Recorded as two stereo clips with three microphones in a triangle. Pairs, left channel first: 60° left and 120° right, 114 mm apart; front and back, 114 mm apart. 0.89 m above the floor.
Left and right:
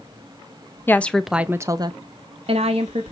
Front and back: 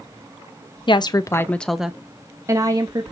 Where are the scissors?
No scissors in this recording.